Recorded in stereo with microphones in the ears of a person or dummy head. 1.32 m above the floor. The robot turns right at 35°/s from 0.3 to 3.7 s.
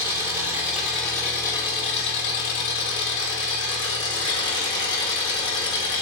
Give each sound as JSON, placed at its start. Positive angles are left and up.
{"t": 0.0, "sound": "an engine running", "azimuth_deg": -20, "distance_m": 1.7}